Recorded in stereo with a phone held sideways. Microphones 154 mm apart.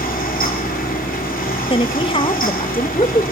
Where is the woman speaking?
35° left (ahead or behind), 1.1 m.